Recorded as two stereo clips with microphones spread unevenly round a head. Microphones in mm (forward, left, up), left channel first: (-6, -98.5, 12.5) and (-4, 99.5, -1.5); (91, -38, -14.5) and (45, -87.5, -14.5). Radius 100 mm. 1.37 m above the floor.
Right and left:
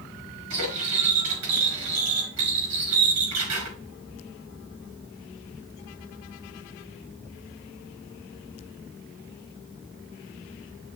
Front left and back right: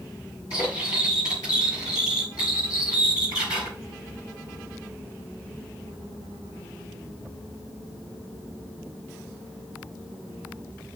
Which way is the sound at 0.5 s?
115° left.